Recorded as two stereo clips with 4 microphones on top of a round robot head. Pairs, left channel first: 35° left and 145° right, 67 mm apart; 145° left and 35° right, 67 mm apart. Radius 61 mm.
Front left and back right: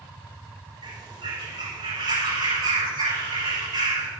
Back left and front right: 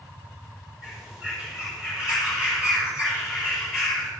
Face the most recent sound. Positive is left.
turn(degrees=-115)